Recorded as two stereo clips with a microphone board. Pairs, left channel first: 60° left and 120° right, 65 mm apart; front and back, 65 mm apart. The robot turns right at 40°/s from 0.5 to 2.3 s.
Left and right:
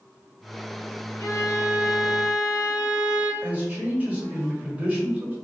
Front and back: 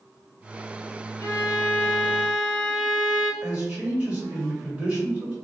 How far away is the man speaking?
About 1.6 m.